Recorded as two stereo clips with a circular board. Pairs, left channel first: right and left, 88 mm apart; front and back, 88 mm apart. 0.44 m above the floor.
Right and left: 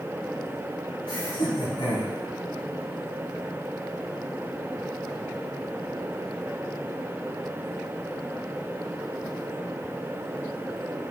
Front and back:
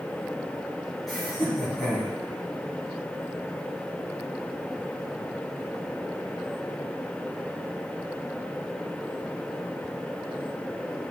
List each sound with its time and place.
1.1 s laughter: 90° right, 3.5 m